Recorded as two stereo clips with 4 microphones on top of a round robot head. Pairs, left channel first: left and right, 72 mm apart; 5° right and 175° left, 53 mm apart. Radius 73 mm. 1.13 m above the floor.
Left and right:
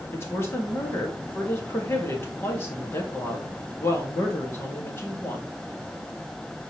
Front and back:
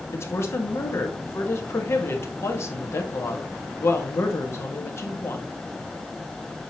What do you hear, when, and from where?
0.1 s a woman speaking: 30° left, 1.7 m